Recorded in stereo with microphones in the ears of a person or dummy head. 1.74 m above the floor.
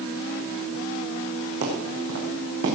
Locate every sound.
1.6 s footsteps: 70° right (ahead or behind), 5 m